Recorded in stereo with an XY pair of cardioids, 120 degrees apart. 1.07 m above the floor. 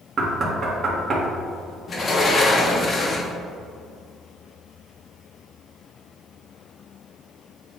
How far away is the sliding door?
About 1.2 m.